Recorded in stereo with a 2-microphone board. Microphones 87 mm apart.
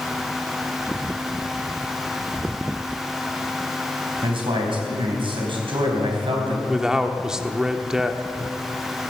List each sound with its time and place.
4.2 s a man speaking: 70° right (ahead or behind), 4 m
6.7 s a man speaking: 5° right (ahead or behind), 1.0 m